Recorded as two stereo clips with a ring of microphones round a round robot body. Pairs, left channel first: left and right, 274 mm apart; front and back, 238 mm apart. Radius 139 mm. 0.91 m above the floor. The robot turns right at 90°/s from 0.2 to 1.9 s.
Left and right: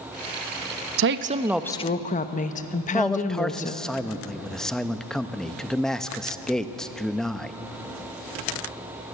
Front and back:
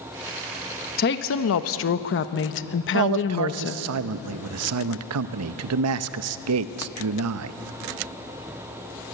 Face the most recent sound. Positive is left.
turn(degrees=180)